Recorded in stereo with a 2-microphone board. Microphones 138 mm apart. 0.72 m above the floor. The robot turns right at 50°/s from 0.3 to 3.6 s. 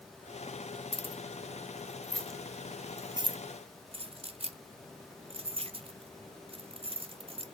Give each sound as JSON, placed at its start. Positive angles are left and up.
{"t": 0.9, "sound": "keys jangling", "side_deg": 45, "distance_m": 0.5}